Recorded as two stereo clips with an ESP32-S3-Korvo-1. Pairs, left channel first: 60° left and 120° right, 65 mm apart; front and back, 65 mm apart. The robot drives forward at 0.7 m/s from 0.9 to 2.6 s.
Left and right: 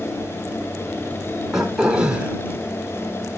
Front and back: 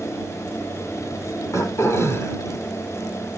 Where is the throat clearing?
35° right, 2 m; by 2.4 s 50° right, 1.7 m.